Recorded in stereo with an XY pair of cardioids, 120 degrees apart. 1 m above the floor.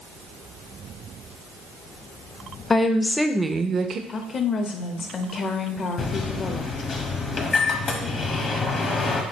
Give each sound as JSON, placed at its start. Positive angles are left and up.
{"t": 2.7, "sound": "a woman speaking", "azimuth_deg": 30, "distance_m": 0.6}
{"t": 4.1, "sound": "a woman speaking", "azimuth_deg": 40, "distance_m": 0.7}
{"t": 6.0, "sound": "a microwave", "azimuth_deg": 40, "distance_m": 0.9}